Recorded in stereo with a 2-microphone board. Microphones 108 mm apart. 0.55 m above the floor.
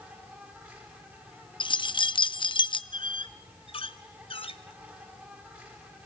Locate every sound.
0.0 s an insect: 20° right (ahead or behind), 5 m
1.6 s keys jangling: 50° left (ahead or behind), 0.5 m
2.9 s a squeak: 60° left (ahead or behind), 0.8 m